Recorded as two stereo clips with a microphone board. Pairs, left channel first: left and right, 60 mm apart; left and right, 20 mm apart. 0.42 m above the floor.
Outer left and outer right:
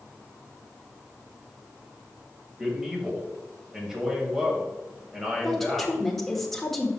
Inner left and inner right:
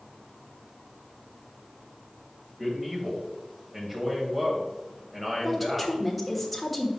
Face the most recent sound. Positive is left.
turn(degrees=5)  # may be behind; listen again after turning